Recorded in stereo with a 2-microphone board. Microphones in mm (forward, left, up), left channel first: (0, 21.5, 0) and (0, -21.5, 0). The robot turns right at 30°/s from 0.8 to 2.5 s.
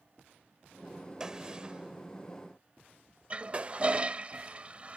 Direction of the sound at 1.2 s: 15° right (ahead or behind).